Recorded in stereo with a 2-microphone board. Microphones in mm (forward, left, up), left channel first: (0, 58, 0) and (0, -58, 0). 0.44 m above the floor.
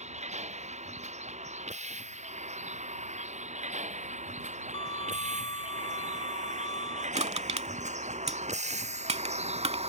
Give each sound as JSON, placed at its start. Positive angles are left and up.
{"t": 0.0, "sound": "a vehicle", "side_deg": -75}
{"t": 4.7, "sound": "a violin", "side_deg": 55}
{"t": 7.2, "sound": "crushing", "side_deg": -65}